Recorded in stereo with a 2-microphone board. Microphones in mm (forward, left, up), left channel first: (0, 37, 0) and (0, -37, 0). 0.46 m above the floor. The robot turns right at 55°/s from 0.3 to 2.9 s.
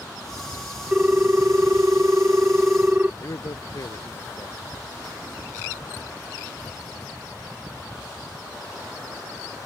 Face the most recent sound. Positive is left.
turn(degrees=50)  # may be behind; listen again after turning